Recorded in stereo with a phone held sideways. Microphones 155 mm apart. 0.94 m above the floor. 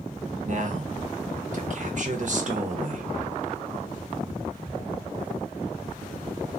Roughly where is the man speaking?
Right.